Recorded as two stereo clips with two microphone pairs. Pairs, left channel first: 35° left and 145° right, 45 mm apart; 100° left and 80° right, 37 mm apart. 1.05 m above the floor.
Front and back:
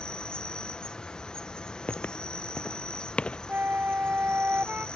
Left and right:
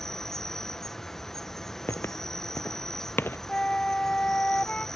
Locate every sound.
0.0 s an insect: 50° left
1.9 s footsteps: 85° left; by 3.4 s 100° left
3.5 s a flute: 165° left